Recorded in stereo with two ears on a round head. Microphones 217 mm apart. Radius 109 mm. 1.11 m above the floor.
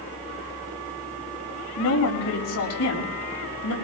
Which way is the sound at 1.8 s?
70° left (ahead or behind).